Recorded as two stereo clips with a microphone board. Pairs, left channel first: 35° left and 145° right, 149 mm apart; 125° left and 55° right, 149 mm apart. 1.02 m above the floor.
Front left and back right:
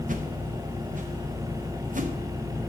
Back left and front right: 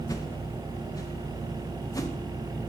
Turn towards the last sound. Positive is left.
turn(degrees=-170)